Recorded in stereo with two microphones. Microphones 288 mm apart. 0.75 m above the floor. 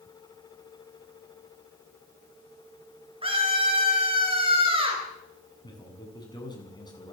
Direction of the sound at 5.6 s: 15° left (ahead or behind).